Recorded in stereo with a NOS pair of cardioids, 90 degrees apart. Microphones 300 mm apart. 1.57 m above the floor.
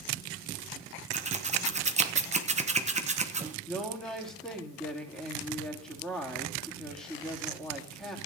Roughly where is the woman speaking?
Ahead.